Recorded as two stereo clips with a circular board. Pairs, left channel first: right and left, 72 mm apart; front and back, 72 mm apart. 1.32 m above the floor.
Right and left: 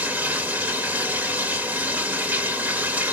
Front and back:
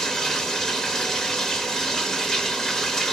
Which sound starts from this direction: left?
Running water, at 0.0 s.